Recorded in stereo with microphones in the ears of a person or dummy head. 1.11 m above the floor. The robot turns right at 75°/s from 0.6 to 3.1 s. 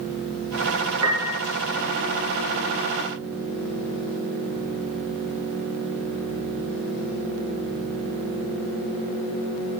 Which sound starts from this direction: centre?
A piano, at 1.0 s.